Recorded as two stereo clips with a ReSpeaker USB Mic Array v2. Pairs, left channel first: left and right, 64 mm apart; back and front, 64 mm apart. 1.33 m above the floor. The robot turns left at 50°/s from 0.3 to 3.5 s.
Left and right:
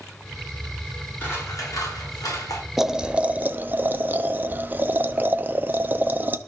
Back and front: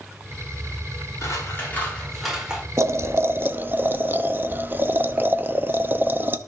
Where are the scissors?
145° left, 5.5 m; by 2.6 s 75° left, 5.5 m.